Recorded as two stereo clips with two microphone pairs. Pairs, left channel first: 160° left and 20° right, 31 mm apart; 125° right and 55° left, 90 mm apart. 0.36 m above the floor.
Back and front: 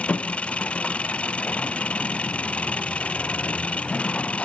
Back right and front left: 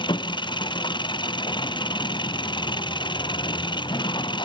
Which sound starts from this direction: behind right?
An engine running, at 0.0 s.